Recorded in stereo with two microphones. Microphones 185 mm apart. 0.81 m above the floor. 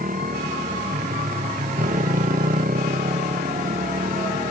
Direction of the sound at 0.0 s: 50° right (ahead or behind).